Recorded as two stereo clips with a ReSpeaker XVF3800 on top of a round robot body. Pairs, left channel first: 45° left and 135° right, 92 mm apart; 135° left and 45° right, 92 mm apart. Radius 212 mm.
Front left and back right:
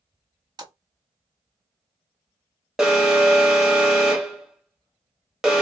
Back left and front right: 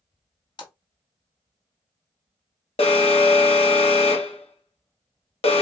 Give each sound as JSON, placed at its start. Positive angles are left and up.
{"t": 0.6, "sound": "a splash", "azimuth_deg": 175, "distance_m": 1.3}
{"t": 2.8, "sound": "an alarm", "azimuth_deg": 140, "distance_m": 1.4}